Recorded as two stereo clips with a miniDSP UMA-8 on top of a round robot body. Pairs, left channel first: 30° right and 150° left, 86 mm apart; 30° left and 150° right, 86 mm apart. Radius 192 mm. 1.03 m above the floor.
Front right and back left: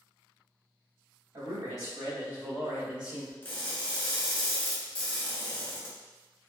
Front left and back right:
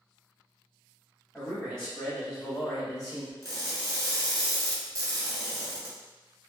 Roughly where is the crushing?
Right.